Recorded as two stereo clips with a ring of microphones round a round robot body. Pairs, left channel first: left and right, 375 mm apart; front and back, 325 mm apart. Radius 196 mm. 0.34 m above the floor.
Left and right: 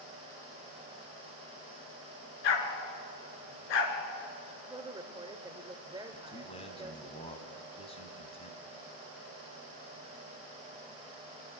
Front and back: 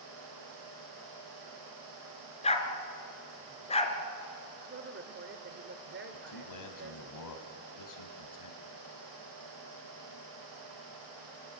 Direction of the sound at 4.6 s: 160° right.